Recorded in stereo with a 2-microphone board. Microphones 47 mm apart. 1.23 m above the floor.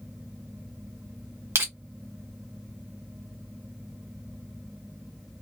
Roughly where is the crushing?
Right.